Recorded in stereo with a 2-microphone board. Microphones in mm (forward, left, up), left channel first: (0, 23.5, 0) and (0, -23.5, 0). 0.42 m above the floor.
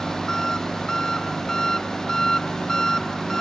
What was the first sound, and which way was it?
An engine running, 10° left (ahead or behind).